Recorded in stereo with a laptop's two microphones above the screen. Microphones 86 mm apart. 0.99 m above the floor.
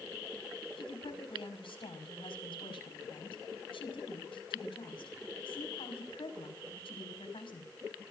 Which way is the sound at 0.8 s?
85° left.